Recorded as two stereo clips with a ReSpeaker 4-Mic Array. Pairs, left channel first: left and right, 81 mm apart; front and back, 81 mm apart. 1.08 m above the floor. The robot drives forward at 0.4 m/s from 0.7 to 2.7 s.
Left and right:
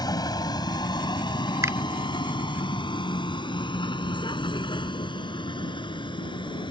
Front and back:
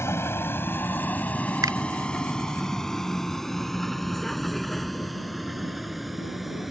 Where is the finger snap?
140° right; by 1.8 s 145° right.